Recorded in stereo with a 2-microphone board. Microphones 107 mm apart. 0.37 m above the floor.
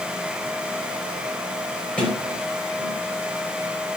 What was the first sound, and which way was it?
A sliding door, 10° left (ahead or behind).